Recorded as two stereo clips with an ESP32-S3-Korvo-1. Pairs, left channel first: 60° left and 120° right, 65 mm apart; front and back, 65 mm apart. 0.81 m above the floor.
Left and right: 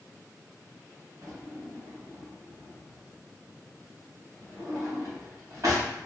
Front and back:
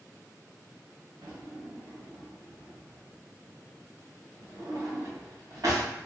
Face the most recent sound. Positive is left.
turn(degrees=-160)